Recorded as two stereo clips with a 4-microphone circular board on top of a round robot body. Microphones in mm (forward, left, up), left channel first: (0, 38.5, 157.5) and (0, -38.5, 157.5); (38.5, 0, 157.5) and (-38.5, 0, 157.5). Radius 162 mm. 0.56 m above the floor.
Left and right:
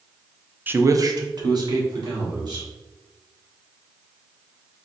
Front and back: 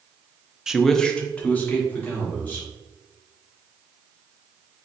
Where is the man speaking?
110° right, 0.6 m; by 2.7 s 65° right, 2 m.